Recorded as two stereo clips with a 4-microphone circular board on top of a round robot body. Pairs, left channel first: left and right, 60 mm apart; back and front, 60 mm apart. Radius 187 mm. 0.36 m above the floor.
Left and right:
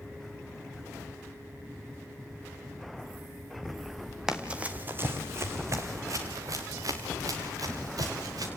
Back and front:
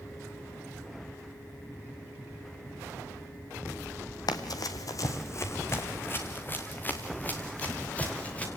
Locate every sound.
4.3 s running footsteps: 170° right, 1.1 m; by 8.5 s 110° right, 3.5 m